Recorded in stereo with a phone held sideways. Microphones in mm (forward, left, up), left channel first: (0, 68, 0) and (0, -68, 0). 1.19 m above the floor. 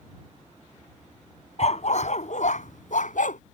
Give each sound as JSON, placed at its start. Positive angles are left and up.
{"t": 1.6, "sound": "a dog barking", "side_deg": 55}